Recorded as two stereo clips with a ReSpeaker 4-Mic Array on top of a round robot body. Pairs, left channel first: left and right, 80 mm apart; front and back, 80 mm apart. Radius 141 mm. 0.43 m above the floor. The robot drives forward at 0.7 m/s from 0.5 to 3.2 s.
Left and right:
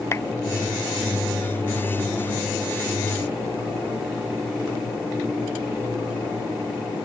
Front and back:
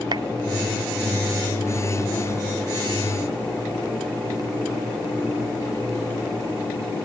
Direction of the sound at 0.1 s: 150° left.